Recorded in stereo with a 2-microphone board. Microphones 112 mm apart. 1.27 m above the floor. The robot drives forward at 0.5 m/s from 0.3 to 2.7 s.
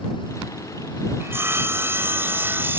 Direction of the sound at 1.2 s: 20° right (ahead or behind).